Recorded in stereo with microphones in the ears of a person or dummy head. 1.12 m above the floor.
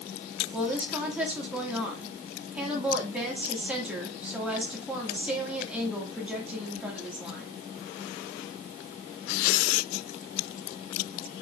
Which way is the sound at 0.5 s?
10° right (ahead or behind).